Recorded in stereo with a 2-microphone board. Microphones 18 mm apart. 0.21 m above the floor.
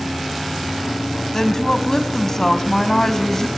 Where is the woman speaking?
30° left (ahead or behind), 1.1 m.